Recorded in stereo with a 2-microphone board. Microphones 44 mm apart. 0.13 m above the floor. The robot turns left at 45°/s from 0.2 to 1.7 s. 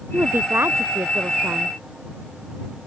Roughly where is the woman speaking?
Ahead right.